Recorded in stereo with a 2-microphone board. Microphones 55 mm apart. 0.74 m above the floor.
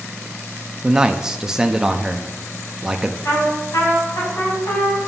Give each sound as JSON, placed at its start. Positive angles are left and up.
{"t": 0.8, "sound": "a man speaking", "side_deg": -10, "distance_m": 0.5}
{"t": 3.2, "sound": "a trumpet", "side_deg": 75, "distance_m": 3.5}